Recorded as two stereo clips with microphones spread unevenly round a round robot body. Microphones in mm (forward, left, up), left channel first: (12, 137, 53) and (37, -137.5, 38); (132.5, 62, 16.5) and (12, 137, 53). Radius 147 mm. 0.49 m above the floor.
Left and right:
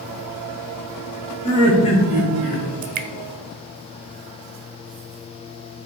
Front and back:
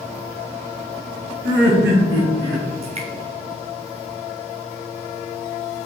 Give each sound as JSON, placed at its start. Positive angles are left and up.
{"t": 1.4, "sound": "laughter", "azimuth_deg": 170, "distance_m": 3.0}
{"t": 2.8, "sound": "dripping", "azimuth_deg": -145, "distance_m": 0.6}